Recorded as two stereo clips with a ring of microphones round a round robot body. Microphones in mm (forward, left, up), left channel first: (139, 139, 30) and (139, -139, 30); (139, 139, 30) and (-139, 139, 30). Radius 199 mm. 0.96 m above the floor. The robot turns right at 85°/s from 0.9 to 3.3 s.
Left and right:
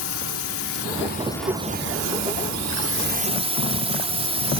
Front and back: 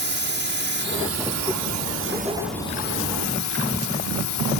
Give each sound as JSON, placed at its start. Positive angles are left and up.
{"t": 0.0, "sound": "a drone", "azimuth_deg": 135}